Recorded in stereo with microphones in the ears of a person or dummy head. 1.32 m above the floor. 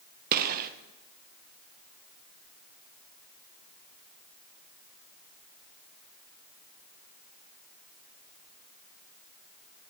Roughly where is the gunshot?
Right.